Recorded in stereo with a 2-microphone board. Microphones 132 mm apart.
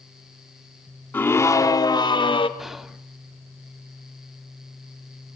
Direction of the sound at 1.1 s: 15° left (ahead or behind).